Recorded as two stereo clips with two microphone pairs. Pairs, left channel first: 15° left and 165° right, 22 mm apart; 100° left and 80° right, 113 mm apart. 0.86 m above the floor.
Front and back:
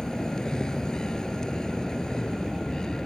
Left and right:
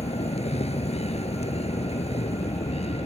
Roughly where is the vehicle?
Left.